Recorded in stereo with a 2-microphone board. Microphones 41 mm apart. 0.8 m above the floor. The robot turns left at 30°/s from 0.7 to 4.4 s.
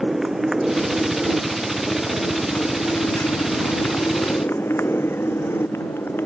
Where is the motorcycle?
175° right; by 6.3 s 75° left.